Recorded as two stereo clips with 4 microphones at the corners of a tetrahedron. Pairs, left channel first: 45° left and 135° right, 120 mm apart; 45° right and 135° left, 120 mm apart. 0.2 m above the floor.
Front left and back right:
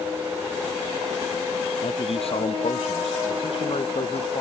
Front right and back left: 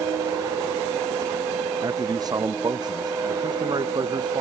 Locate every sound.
1.8 s a man speaking: 80° left; by 4.4 s 85° left